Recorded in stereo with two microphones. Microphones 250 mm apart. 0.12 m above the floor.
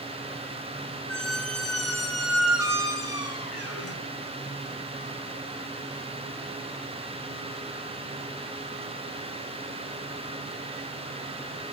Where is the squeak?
70° left (ahead or behind), 1.2 m.